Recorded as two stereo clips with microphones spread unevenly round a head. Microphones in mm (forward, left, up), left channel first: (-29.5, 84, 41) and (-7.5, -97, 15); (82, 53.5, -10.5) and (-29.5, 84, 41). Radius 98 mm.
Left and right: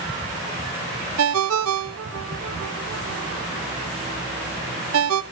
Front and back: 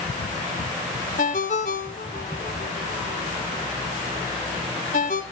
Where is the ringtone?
80° right, 0.8 m.